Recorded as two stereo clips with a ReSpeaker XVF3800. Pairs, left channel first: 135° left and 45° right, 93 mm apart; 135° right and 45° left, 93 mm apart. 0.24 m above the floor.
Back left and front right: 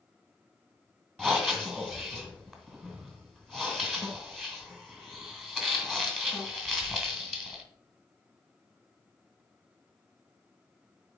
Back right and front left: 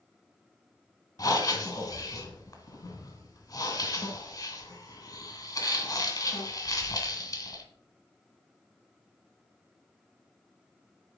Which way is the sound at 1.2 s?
140° right.